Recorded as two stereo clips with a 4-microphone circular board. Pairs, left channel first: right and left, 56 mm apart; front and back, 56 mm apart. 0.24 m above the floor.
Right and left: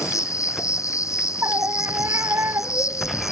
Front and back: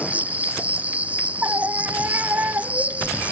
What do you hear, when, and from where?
0.0 s an insect: 115° right
1.4 s a scream: 125° left